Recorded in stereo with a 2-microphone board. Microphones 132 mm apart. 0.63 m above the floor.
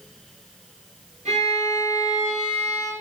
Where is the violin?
55° right (ahead or behind), 1.7 m.